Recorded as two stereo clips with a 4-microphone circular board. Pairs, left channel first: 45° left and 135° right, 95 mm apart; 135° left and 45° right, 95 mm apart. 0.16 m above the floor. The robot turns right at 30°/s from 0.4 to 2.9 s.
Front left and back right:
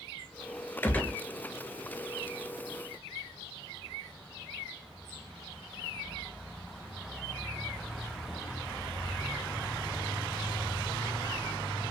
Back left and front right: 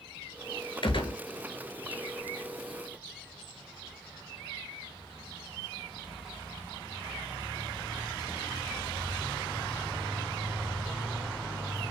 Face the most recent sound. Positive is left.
turn(degrees=175)